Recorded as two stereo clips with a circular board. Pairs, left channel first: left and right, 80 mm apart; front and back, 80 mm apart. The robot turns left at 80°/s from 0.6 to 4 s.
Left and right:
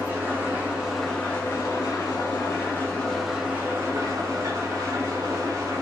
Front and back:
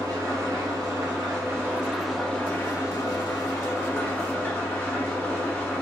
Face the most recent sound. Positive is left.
turn(degrees=-65)